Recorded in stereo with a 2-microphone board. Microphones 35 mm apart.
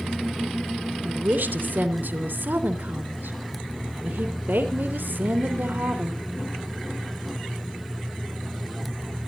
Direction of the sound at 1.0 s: 65° right (ahead or behind).